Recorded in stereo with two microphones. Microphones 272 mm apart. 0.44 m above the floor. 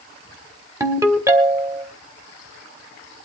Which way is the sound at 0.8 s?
10° right (ahead or behind).